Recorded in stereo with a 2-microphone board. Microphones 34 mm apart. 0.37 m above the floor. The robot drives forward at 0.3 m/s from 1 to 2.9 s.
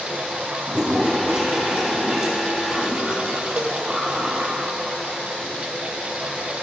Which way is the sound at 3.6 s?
80° right.